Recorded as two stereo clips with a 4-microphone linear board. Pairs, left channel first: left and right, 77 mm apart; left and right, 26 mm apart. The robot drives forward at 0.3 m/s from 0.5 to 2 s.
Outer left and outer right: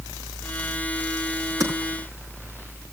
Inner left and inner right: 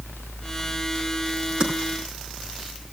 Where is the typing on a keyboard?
40° right (ahead or behind), 5.5 m.